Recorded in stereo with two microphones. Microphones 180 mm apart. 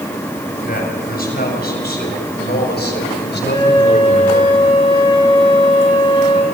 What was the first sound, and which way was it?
A man speaking, 55° left (ahead or behind).